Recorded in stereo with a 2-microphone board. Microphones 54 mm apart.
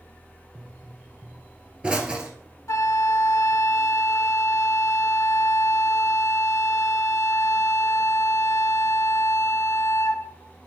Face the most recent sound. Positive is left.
turn(degrees=70)  # may be behind; listen again after turning